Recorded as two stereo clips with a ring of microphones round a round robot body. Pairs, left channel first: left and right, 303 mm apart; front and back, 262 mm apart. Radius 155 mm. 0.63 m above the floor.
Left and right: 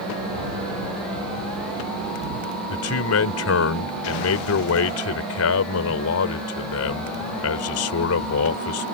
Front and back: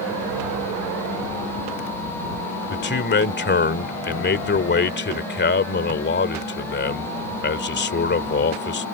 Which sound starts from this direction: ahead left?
A man speaking, at 2.7 s.